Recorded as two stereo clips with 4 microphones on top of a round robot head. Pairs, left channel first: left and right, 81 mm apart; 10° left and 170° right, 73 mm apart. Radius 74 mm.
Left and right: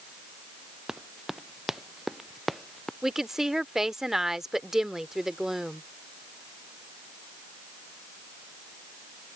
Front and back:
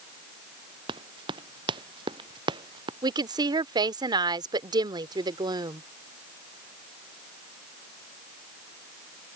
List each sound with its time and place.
0.9 s running footsteps: 175° right; by 2.9 s straight behind
3.0 s a woman speaking: 175° right